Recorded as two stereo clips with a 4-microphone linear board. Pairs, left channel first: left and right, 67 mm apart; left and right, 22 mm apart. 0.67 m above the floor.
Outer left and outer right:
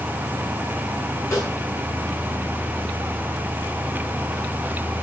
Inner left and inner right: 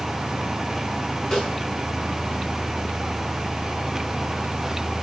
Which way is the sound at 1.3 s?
40° left (ahead or behind).